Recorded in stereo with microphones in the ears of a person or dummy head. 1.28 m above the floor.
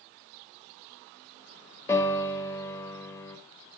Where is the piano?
15° left (ahead or behind), 2 m.